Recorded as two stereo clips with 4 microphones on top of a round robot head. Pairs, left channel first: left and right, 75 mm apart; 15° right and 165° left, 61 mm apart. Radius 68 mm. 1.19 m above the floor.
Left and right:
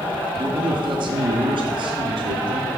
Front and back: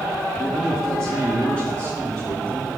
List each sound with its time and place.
0.3 s a man speaking: 90° right, 1.4 m; by 2.7 s 80° right, 3 m